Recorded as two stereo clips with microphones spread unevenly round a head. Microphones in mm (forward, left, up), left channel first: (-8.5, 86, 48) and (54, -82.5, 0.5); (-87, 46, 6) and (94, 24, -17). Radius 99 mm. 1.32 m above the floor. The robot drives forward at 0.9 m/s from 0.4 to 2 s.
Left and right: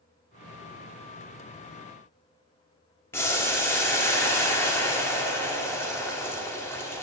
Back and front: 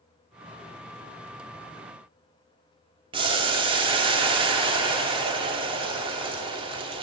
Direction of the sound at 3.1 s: 55° left.